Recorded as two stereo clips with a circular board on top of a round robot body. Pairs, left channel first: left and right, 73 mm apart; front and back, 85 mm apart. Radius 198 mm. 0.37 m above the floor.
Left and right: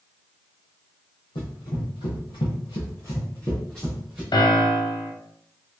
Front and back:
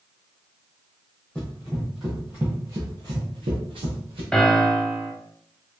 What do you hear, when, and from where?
1.4 s running footsteps: 75° left, 1.2 m; by 4.2 s 175° right, 1.1 m
4.3 s a piano: 80° left, 0.7 m